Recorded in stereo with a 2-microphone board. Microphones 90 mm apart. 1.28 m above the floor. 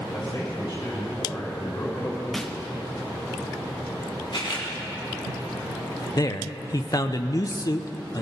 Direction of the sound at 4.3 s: 65° left (ahead or behind).